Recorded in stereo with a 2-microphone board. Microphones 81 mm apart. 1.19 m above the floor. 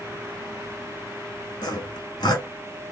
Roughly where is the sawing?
Left.